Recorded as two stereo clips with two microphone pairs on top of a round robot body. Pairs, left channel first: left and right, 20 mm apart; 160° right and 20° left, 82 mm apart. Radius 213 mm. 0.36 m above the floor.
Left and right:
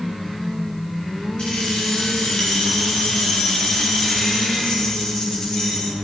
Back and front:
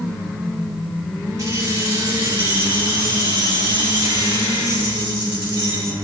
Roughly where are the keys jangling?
Left.